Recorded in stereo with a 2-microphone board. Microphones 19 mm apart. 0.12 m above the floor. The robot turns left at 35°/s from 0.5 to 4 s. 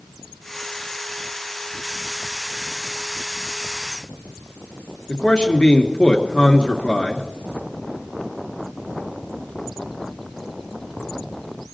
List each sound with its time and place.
5.1 s a man speaking: 50° left (ahead or behind), 2 m